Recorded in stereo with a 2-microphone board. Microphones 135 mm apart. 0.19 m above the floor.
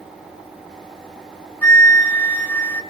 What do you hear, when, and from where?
1.6 s a flute: 15° left (ahead or behind), 1.0 m